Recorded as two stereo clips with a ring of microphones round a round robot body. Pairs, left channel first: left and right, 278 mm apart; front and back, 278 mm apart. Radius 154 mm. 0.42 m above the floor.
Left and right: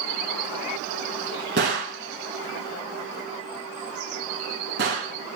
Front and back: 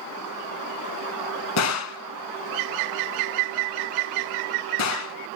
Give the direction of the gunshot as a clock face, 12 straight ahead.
1 o'clock.